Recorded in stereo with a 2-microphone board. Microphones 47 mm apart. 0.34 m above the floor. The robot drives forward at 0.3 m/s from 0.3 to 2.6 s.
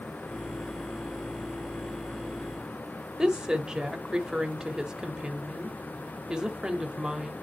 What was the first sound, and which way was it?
A woman speaking, 15° right (ahead or behind).